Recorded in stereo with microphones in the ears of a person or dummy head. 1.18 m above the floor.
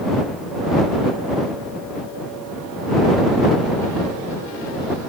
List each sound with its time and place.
Only background noise.